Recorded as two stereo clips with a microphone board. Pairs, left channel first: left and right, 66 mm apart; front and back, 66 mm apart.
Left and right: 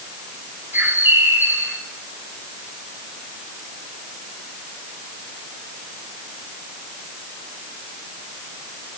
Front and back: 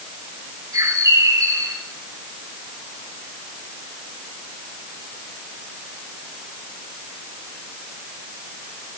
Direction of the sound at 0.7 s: 150° right.